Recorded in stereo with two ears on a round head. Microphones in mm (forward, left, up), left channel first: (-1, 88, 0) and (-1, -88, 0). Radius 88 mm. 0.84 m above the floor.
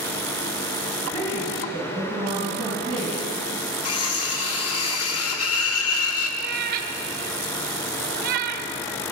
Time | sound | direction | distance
1.0 | a woman speaking | 20° right (ahead or behind) | 5.5 m
3.9 | cutlery clinking | 80° left | 0.9 m
6.4 | a cat meowing | 50° right (ahead or behind) | 0.6 m